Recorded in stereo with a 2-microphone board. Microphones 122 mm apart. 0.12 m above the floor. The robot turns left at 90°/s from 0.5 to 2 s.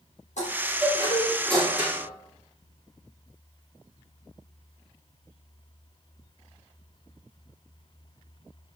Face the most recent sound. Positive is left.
turn(degrees=-35)